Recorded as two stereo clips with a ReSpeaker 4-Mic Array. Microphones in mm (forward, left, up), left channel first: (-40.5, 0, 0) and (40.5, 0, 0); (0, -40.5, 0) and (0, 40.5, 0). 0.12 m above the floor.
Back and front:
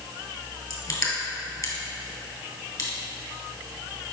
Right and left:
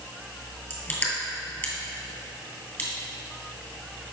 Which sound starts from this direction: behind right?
Crushing, at 0.7 s.